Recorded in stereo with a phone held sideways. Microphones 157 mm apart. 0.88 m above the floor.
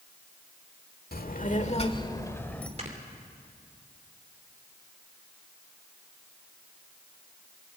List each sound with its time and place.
1.1 s a child speaking: 75° left (ahead or behind), 1.6 m; by 2.7 s 5° left (ahead or behind), 2 m
2.8 s snoring: 45° right (ahead or behind), 3 m